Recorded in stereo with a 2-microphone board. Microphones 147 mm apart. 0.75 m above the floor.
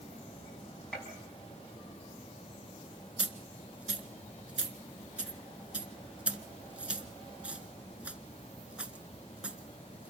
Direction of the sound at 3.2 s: 10° right (ahead or behind).